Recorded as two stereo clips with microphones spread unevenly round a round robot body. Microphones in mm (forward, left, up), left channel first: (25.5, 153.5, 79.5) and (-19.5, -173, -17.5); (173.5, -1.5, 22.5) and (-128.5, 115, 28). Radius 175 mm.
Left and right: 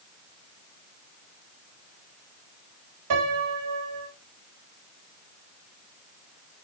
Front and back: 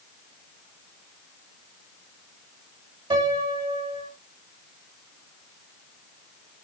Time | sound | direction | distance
3.1 | a piano | 125° right | 2.5 m